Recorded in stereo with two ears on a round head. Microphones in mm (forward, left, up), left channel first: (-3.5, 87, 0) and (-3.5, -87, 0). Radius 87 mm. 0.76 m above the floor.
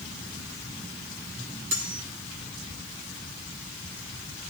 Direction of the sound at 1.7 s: 65° right (ahead or behind).